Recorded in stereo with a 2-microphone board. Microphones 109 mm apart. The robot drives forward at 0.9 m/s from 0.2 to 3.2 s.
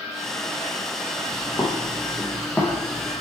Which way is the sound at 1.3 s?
35° left (ahead or behind).